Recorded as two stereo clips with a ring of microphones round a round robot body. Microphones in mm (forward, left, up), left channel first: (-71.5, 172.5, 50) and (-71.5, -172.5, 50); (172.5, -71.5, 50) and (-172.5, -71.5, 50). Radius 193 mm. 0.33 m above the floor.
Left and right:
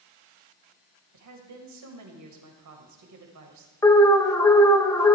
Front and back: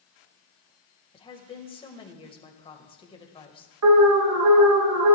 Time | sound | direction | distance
1.1 | a woman speaking | 70° right | 2 m
3.8 | an alarm | 170° left | 1.1 m